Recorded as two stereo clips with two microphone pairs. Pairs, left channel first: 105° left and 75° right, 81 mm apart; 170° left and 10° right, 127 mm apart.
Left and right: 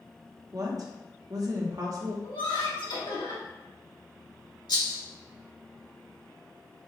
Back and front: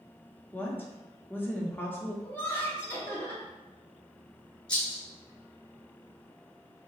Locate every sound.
0.5 s a woman speaking: 115° right, 1.0 m
2.2 s laughter: 100° left, 1.5 m
4.7 s a rattle: 90° left, 1.9 m